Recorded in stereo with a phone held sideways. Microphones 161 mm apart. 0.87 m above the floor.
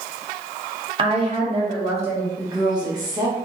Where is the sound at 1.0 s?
30° right (ahead or behind), 0.8 m; by 2.3 s 40° right (ahead or behind), 1.4 m.